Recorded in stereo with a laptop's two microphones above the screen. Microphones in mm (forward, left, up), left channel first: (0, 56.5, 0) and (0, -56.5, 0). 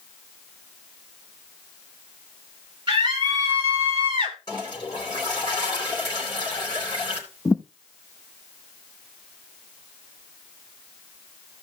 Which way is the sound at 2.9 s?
40° right (ahead or behind).